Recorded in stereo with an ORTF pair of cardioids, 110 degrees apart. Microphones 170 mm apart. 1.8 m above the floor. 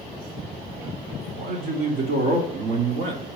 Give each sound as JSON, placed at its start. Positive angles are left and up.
{"t": 1.4, "sound": "a man speaking", "azimuth_deg": -70, "distance_m": 1.7}